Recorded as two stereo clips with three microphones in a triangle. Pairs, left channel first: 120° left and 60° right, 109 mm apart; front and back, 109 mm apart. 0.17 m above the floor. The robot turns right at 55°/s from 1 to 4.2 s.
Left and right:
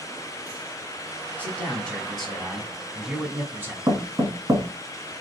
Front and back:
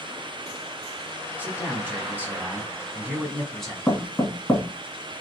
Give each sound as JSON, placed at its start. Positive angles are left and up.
{"t": 1.4, "sound": "a man speaking", "azimuth_deg": 160, "distance_m": 1.1}
{"t": 3.9, "sound": "knocking", "azimuth_deg": -70, "distance_m": 1.5}